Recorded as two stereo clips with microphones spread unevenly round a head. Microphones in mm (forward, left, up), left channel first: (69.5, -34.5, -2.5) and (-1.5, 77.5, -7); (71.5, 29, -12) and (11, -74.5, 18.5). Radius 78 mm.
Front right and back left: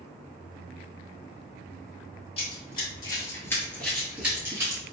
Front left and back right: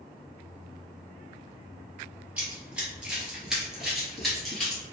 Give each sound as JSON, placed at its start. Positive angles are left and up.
{"t": 2.4, "sound": "running footsteps", "azimuth_deg": -65, "distance_m": 1.6}